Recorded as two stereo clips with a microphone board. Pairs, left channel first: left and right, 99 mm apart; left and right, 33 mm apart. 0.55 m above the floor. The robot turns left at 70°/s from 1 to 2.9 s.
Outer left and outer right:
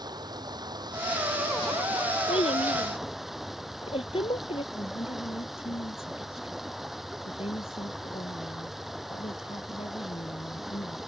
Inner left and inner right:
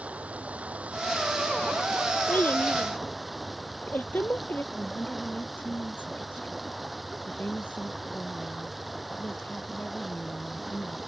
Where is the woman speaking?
75° left (ahead or behind).